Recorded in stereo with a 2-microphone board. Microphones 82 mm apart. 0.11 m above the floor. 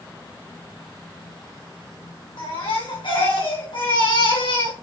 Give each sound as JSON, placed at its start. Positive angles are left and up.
{"t": 2.4, "sound": "a baby crying", "side_deg": 80, "distance_m": 4.0}